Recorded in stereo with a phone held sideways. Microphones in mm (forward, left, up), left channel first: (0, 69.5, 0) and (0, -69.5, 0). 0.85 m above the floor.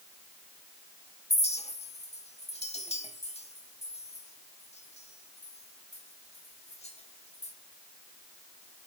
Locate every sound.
1.3 s a clink: 50° left (ahead or behind), 1.4 m